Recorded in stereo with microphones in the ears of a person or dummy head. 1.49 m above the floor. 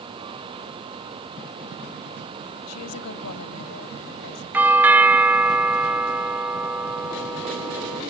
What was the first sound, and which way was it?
A woman speaking, 85° left.